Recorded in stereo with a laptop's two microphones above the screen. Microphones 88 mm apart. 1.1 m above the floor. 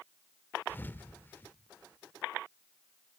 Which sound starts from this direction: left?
A thud, at 0.7 s.